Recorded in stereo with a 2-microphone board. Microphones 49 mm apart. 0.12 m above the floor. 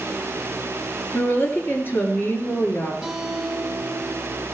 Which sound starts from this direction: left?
A woman speaking, at 1.1 s.